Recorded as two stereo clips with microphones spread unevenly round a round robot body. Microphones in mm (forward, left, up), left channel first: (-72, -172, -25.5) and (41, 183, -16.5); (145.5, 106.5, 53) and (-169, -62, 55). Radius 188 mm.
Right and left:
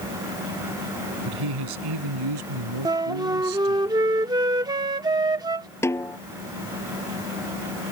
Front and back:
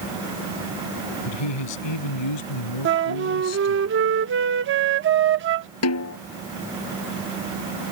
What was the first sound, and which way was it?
A man speaking, 40° left.